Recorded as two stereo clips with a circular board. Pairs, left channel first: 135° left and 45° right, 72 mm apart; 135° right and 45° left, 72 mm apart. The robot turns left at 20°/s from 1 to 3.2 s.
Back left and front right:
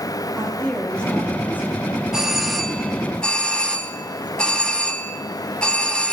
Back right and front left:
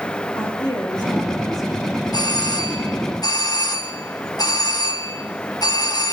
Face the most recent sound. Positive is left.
turn(degrees=-150)